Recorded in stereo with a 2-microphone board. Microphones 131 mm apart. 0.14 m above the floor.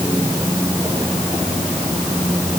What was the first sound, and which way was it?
Only background noise.